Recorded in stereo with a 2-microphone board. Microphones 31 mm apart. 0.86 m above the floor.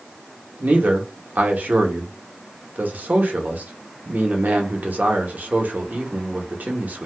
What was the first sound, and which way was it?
A man speaking, 55° right (ahead or behind).